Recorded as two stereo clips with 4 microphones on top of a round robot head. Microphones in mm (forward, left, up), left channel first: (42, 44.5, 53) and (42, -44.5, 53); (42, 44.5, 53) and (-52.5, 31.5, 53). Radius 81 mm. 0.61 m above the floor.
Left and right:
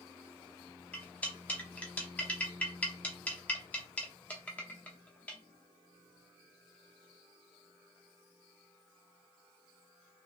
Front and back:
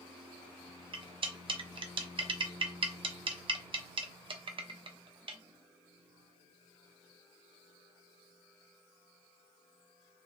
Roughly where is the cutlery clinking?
Behind.